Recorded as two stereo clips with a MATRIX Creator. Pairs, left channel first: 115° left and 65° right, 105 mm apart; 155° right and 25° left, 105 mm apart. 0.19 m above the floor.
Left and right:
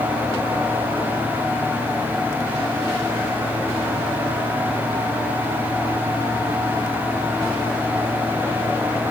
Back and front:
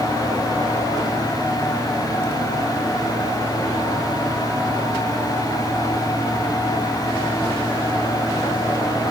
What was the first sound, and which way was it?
Only background noise.